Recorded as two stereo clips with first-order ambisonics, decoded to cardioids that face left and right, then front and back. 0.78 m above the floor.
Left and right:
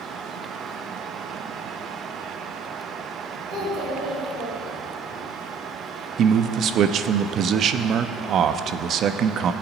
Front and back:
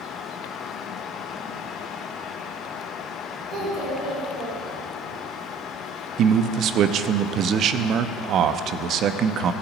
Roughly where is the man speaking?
Behind right.